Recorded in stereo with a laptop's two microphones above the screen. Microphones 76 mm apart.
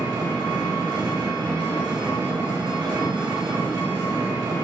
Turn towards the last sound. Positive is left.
turn(degrees=-80)